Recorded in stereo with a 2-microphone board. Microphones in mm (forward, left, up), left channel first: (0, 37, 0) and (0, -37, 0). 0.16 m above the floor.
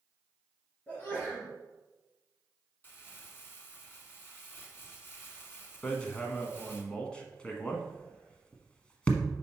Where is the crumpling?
30° left (ahead or behind), 1.3 m.